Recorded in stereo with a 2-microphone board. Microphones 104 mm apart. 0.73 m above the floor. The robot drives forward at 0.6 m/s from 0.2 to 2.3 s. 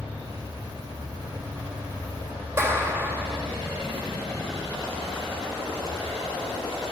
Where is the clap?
25° right (ahead or behind), 3 m.